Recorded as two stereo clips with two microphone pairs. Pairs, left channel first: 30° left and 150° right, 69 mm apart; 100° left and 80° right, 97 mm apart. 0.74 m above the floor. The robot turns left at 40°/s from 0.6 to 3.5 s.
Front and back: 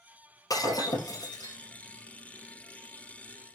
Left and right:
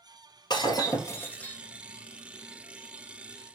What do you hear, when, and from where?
0.5 s breaking glass: 55° left, 2 m; by 1.6 s 15° left, 2 m